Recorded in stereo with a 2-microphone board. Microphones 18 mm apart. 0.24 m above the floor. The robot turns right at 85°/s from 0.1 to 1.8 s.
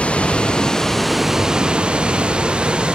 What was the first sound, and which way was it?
Running water, 95° left.